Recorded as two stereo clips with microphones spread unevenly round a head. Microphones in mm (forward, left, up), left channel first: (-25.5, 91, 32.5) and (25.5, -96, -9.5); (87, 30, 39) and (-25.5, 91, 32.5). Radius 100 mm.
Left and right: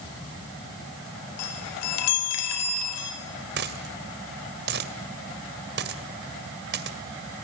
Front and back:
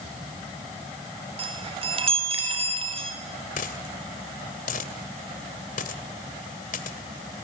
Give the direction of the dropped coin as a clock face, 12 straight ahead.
1 o'clock.